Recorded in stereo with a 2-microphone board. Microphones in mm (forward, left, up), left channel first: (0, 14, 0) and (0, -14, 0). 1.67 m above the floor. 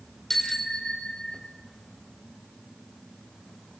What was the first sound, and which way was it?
A bicycle bell, 10° left (ahead or behind).